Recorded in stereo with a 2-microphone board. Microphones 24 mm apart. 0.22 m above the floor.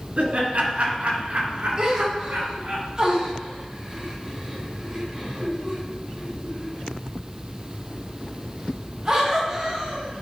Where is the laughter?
55° right (ahead or behind), 2.5 m; by 2.8 s 60° right (ahead or behind), 3.5 m.